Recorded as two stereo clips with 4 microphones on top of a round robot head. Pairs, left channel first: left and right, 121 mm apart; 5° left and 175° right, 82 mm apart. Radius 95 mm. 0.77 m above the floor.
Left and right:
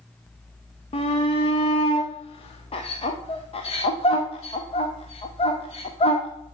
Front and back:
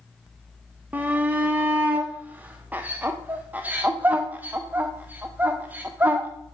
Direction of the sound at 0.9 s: 115° left.